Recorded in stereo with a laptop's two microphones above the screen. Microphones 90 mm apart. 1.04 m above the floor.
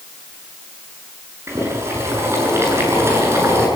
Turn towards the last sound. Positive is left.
turn(degrees=-30)  # may be behind; listen again after turning